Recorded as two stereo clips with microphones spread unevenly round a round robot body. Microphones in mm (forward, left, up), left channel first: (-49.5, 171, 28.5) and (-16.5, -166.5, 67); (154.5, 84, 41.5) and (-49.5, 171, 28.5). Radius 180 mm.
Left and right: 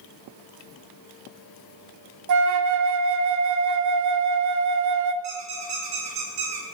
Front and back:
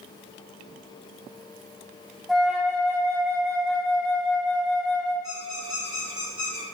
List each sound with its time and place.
2.3 s a flute: 115° right, 0.7 m
5.2 s a squeak: 120° right, 3.5 m